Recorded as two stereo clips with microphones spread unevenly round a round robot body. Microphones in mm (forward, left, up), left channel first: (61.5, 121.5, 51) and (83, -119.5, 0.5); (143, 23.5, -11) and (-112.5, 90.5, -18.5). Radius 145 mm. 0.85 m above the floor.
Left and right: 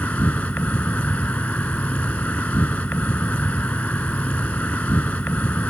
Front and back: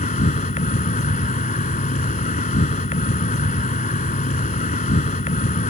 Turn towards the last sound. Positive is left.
turn(degrees=30)